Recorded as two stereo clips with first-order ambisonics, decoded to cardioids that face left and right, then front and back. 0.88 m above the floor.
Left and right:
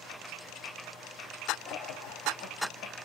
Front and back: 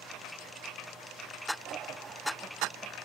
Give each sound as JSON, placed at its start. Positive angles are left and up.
{"t": 1.6, "sound": "laughter", "azimuth_deg": 125, "distance_m": 1.8}